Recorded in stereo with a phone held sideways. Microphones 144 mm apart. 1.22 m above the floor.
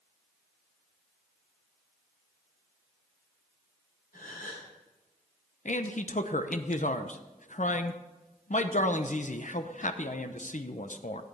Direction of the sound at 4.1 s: 75° left (ahead or behind).